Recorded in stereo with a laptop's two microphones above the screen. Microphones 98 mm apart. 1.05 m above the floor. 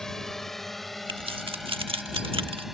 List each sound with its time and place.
0.0 s a drone: 5° left (ahead or behind); by 2.8 s 5° right (ahead or behind)
1.1 s keys jangling: 60° right (ahead or behind)